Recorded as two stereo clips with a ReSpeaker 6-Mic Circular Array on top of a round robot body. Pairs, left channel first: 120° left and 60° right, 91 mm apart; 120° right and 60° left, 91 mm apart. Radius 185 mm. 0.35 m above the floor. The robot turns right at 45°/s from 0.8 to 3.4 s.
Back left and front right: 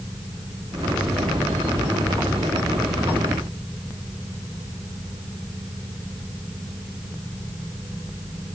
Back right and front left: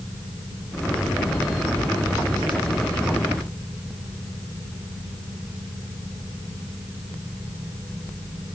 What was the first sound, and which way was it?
Only background noise.